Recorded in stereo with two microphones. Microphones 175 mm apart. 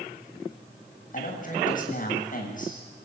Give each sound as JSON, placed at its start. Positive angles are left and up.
{"t": 1.1, "sound": "a man speaking", "side_deg": 45, "distance_m": 7.5}